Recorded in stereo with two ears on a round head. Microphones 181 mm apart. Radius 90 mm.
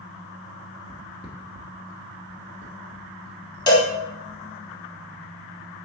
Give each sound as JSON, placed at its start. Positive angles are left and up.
{"t": 0.9, "sound": "footsteps", "side_deg": 25, "distance_m": 1.1}
{"t": 3.7, "sound": "a cowbell", "side_deg": 20, "distance_m": 0.9}